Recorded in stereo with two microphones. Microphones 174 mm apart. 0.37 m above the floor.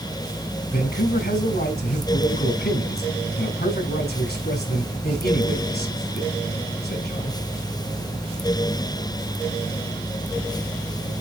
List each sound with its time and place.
0.7 s a man speaking: 65° left (ahead or behind), 3.5 m